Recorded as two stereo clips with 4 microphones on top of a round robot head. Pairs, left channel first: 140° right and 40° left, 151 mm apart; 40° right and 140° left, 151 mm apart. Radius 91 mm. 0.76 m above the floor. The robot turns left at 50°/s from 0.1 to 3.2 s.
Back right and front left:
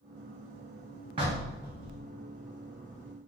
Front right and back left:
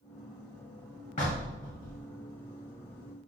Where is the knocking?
10° right, 1.5 m; by 2.0 s 55° right, 1.5 m.